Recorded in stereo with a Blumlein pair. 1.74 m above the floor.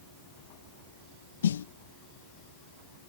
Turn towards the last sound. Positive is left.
turn(degrees=65)